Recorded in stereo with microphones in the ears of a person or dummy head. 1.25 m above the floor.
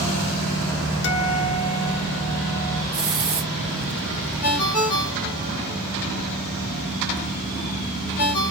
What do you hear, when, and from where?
1.0 s a guitar: 65° left (ahead or behind), 1.3 m
2.9 s a hiss: 5° right (ahead or behind), 1.3 m
4.4 s a ringtone: 50° left (ahead or behind), 2.5 m